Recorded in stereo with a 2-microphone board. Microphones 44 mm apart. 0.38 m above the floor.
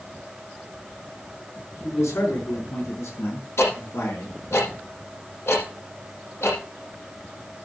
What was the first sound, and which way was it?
A man speaking, 75° left (ahead or behind).